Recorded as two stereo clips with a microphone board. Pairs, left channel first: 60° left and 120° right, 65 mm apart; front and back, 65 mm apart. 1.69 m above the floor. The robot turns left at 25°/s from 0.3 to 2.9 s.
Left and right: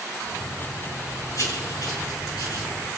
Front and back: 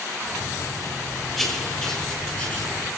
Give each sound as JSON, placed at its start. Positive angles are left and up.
{"t": 1.4, "sound": "writing", "azimuth_deg": 90, "distance_m": 6.5}